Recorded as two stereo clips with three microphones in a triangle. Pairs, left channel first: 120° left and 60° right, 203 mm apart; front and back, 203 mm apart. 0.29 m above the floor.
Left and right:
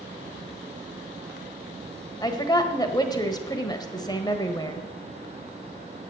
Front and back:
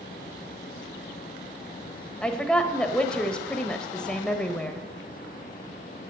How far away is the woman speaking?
About 1.1 m.